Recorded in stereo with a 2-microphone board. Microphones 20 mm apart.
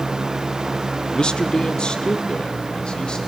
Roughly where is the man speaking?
Left.